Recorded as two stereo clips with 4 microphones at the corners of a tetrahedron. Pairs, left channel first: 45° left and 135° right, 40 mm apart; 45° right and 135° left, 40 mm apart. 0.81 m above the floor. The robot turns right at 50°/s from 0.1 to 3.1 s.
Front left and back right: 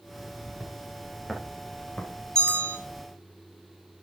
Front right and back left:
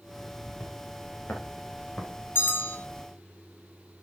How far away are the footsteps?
About 5 m.